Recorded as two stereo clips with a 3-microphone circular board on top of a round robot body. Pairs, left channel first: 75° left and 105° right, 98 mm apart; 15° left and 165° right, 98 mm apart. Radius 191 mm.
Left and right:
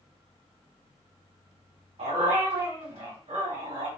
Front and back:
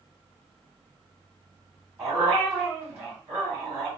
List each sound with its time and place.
2.0 s a dog barking: 95° right, 2 m